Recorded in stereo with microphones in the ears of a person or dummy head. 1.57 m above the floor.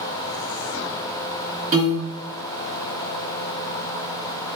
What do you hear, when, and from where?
1.7 s a piano: 40° right (ahead or behind), 1.9 m